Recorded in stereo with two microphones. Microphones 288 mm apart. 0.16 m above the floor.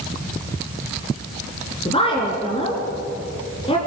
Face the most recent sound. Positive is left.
turn(degrees=20)  # may be behind; listen again after turning